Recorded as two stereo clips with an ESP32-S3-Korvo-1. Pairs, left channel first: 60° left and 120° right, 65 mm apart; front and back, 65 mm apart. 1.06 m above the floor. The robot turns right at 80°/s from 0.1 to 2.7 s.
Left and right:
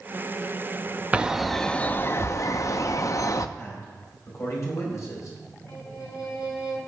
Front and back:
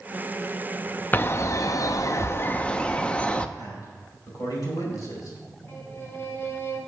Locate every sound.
1.1 s a bird: 60° right, 0.5 m; by 3.5 s 70° left, 0.5 m
3.6 s a man speaking: 20° left, 5 m
5.7 s a violin: 55° left, 2.5 m